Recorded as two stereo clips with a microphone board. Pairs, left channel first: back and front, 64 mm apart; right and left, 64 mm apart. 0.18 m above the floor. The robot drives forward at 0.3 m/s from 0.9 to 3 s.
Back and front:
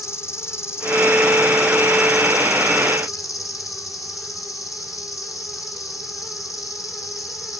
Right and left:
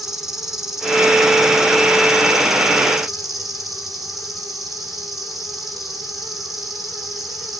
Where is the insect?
170° left, 1.9 m; by 7.6 s 175° left, 2.5 m.